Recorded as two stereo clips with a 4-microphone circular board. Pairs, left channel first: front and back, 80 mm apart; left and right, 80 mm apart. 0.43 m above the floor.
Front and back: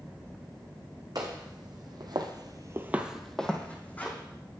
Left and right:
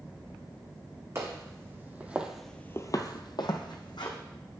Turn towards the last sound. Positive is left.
turn(degrees=65)